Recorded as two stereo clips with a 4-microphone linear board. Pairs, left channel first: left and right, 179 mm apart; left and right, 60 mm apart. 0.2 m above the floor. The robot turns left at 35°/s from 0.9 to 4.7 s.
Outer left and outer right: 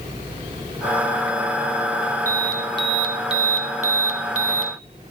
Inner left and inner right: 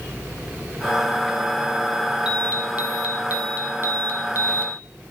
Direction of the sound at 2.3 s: 20° right.